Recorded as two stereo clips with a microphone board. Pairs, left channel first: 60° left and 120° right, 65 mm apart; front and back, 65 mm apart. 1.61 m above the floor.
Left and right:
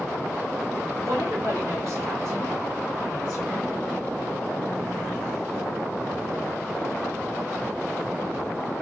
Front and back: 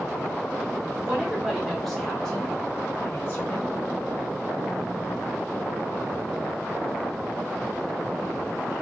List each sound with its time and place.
1.0 s a woman speaking: 105° right, 1.5 m; by 3.7 s 45° right, 1.4 m